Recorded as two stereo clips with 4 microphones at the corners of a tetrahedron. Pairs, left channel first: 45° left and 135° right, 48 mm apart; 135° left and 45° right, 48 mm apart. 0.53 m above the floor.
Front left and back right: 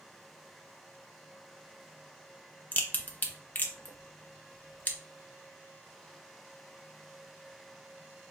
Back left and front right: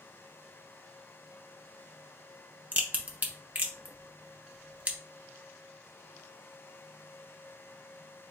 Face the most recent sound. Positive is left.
turn(degrees=5)